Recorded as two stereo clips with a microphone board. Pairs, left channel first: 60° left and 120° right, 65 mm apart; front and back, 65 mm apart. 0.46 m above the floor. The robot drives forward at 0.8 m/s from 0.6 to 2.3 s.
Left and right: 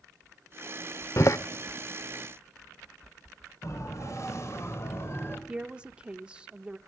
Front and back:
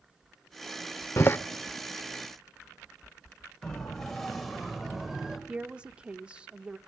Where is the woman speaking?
150° right, 0.7 m.